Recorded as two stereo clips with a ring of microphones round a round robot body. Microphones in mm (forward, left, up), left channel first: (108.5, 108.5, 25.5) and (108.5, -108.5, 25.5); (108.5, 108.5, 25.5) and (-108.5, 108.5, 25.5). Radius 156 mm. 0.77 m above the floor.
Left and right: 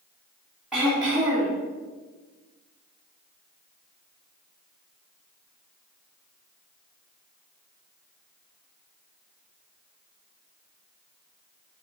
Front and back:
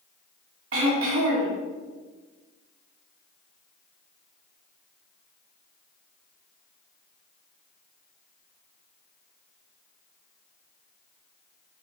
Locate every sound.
0.7 s throat clearing: straight behind, 2.5 m